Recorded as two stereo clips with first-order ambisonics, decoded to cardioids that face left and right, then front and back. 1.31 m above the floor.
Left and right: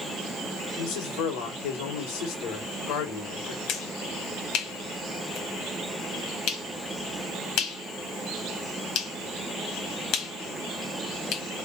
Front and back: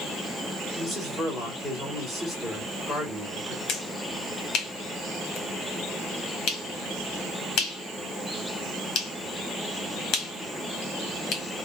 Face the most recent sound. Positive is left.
turn(degrees=50)